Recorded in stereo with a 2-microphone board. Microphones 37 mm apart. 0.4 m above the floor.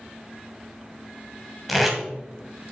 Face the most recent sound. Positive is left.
turn(degrees=0)  # may be behind; listen again after turning